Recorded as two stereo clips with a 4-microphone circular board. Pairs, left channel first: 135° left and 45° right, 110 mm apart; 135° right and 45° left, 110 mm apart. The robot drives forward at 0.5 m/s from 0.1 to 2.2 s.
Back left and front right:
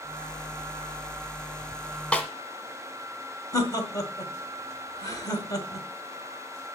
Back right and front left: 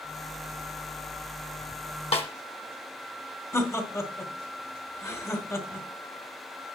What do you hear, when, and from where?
2.1 s a snare drum: 145° right, 1.2 m; by 2.3 s 150° right, 1.2 m
3.5 s laughter: 175° left, 1.5 m